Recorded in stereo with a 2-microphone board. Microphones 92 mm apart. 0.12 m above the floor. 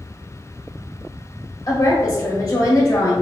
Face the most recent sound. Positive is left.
turn(degrees=45)  # may be behind; listen again after turning